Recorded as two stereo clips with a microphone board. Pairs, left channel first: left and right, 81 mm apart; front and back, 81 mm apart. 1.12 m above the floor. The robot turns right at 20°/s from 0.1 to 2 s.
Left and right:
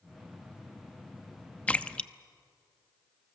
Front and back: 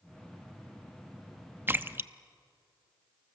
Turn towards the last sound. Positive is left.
turn(degrees=155)